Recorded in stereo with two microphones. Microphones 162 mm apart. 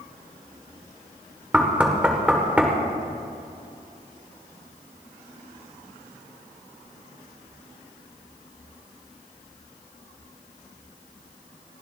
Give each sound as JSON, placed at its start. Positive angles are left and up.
{"t": 1.5, "sound": "knocking", "side_deg": -10, "distance_m": 1.6}